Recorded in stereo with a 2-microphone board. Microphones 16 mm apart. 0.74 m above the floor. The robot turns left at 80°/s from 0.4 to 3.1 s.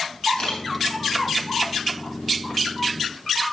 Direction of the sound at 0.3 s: 55° left (ahead or behind).